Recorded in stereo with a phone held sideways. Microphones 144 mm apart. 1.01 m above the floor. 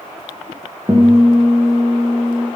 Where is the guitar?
10° right (ahead or behind), 8.5 m.